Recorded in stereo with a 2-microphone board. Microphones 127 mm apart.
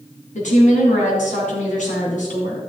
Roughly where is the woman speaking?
Left.